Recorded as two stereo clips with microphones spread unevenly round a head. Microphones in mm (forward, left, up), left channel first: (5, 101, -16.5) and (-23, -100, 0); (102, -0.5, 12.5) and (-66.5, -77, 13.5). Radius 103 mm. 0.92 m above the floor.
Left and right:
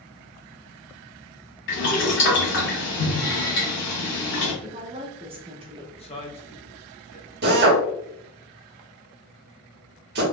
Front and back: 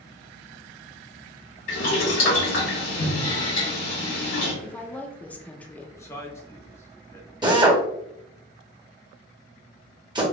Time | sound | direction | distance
1.7 | boiling | 55° left | 1.9 m
4.6 | a woman speaking | 50° right | 0.5 m
6.0 | a man speaking | 85° left | 0.7 m
7.4 | a drill | 100° right | 1.0 m